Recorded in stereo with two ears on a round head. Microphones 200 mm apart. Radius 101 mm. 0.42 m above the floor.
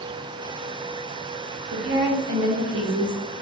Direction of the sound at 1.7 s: 55° right (ahead or behind).